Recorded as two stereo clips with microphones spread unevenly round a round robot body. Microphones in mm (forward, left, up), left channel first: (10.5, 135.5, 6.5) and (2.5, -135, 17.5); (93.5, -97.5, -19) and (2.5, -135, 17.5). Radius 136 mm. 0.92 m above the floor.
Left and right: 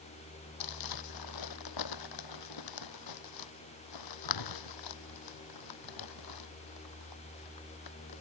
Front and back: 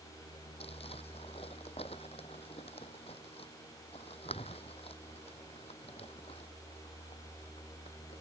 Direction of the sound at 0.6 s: 95° left.